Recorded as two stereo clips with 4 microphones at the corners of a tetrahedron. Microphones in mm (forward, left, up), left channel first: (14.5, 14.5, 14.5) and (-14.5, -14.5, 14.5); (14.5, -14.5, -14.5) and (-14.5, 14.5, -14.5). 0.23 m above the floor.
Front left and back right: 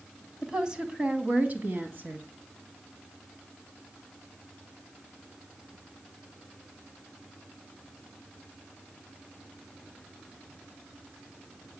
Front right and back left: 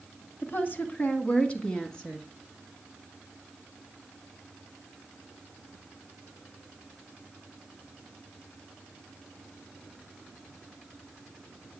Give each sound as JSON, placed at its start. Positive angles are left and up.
{"t": 0.4, "sound": "a woman speaking", "azimuth_deg": -60, "distance_m": 1.8}